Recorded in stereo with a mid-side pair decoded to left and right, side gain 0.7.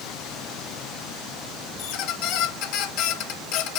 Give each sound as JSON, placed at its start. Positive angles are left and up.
{"t": 1.8, "sound": "a squeak", "azimuth_deg": 65, "distance_m": 1.3}